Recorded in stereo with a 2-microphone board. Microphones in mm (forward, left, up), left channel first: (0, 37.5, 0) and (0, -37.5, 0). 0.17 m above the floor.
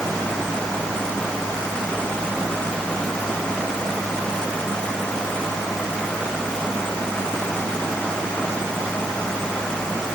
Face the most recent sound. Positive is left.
No sound to turn to.